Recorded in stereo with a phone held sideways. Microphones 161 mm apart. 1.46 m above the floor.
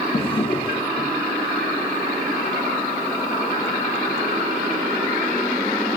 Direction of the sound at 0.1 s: 35° left (ahead or behind).